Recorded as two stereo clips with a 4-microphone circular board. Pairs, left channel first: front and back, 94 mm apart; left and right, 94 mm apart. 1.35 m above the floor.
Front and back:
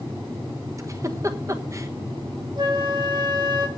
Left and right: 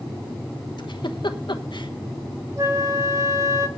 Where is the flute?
145° right, 1.9 m.